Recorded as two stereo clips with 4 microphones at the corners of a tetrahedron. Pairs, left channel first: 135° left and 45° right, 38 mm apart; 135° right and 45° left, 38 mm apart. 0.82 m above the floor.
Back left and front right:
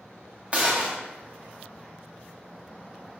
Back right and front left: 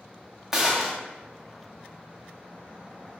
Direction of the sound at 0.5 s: 25° right.